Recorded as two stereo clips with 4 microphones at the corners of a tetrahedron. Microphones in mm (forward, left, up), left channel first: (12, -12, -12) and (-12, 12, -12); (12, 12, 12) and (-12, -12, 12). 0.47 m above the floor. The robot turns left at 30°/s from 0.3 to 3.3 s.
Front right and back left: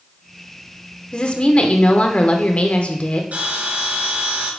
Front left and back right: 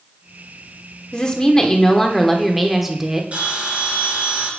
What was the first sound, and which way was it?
A woman speaking, 5° right.